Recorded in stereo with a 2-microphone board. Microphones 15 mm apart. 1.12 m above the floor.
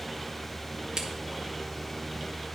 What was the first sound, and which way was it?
A crack, 55° right (ahead or behind).